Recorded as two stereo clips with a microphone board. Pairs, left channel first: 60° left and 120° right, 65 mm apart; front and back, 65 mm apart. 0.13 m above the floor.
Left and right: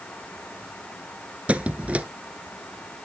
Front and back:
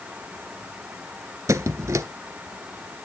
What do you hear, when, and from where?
1.5 s a squeak: 175° left, 0.6 m